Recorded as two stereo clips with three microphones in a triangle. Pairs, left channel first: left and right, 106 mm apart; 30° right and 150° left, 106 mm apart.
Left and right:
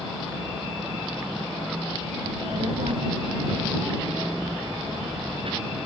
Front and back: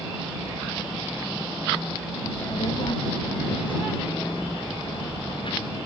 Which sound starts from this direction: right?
A child speaking, at 2.2 s.